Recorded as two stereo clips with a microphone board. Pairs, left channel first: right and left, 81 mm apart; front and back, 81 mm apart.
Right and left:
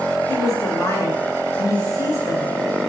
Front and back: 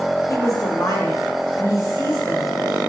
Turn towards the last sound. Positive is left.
turn(degrees=-50)